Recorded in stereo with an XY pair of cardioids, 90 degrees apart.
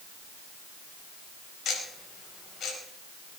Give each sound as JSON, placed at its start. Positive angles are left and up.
{"t": 1.6, "sound": "ticking", "azimuth_deg": 65, "distance_m": 5.0}